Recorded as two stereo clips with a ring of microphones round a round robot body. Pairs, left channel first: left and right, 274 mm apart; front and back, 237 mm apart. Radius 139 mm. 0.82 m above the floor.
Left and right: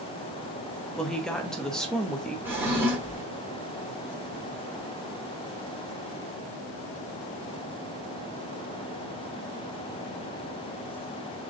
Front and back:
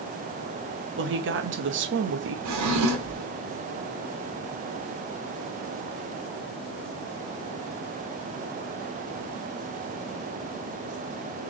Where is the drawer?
175° right, 1.5 m.